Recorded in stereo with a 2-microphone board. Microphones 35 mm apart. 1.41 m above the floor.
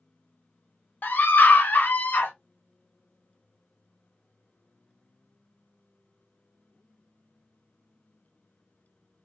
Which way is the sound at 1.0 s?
65° left (ahead or behind).